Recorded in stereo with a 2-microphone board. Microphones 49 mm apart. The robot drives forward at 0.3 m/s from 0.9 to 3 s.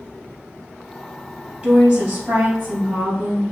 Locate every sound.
1.6 s a woman speaking: 35° right (ahead or behind), 2.0 m; by 3.4 s 40° right (ahead or behind), 1.8 m